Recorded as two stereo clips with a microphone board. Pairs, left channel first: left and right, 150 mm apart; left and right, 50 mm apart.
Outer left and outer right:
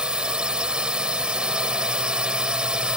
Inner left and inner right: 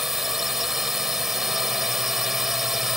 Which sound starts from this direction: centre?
A drone, at 0.0 s.